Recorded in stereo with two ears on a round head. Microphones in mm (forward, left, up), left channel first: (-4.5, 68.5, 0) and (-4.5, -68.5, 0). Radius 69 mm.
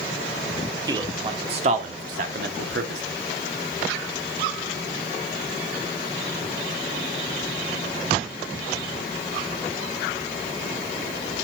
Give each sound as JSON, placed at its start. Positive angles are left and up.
{"t": 0.9, "sound": "a man speaking", "side_deg": -25, "distance_m": 1.9}